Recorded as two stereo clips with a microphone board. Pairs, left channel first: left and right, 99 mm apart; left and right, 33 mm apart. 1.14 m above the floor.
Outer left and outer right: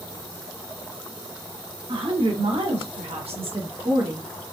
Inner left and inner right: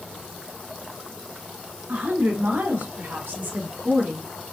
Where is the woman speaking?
65° right (ahead or behind), 2 m; by 4.3 s 35° right (ahead or behind), 1.2 m.